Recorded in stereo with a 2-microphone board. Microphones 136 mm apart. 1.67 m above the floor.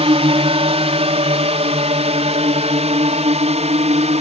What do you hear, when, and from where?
0.0 s a drone: 50° right (ahead or behind); by 4.2 s 55° right (ahead or behind)